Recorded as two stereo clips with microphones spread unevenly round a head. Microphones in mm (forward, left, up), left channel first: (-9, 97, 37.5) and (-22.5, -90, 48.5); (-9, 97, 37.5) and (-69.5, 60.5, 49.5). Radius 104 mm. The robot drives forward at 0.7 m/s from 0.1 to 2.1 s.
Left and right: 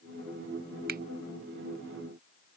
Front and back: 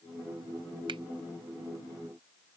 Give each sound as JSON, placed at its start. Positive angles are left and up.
{"t": 0.9, "sound": "a finger snap", "azimuth_deg": -135}